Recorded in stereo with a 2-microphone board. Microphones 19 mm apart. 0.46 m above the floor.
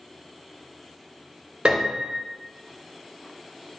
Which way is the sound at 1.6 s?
70° right (ahead or behind).